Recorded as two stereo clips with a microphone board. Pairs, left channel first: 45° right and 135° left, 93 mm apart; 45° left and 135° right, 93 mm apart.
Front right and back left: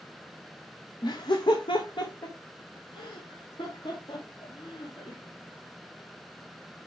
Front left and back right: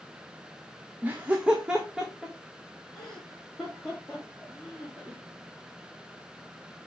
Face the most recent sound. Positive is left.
turn(degrees=-35)